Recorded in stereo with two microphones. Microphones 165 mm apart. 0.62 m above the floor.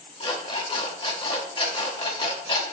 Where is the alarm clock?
30° left (ahead or behind), 1.1 m.